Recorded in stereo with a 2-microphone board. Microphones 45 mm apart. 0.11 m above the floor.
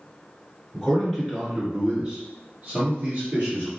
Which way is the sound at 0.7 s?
Centre (ahead or behind).